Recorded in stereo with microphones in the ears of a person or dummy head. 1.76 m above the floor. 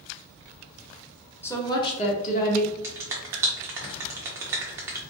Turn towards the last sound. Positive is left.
turn(degrees=-10)  # may be behind; listen again after turning